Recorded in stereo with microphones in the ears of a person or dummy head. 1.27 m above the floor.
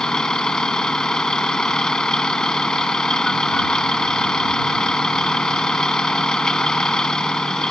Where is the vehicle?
5° left (ahead or behind).